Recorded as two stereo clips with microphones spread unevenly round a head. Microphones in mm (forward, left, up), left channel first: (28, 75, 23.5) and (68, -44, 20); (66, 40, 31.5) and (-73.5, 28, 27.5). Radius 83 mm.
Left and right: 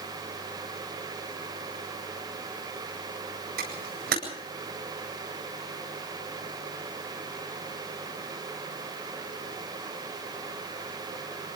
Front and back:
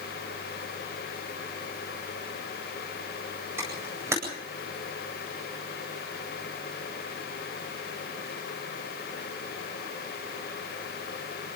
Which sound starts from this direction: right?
A camera shutter, at 3.6 s.